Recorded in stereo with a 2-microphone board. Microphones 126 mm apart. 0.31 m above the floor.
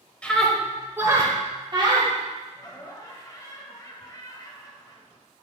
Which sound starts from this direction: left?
Laughter, at 2.5 s.